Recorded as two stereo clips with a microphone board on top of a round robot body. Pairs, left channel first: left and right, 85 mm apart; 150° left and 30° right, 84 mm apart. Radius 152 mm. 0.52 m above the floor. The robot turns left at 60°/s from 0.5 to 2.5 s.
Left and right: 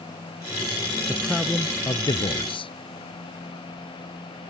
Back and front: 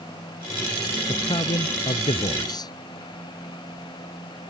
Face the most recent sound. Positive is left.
turn(degrees=110)